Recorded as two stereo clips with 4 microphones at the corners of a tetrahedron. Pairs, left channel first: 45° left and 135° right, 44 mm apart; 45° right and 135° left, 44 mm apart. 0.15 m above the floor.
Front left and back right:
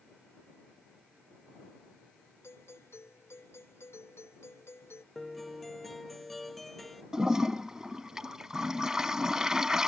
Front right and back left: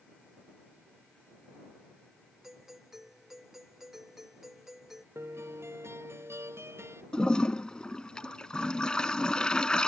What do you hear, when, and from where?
2.4 s a doorbell: 55° left
5.2 s a guitar: 135° left
7.1 s a toilet flushing: 80° right